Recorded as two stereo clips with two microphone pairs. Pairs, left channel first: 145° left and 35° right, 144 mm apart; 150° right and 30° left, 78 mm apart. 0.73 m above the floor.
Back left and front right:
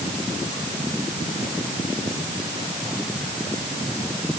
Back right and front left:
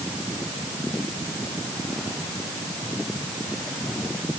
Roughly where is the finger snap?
I don't hear a finger snap.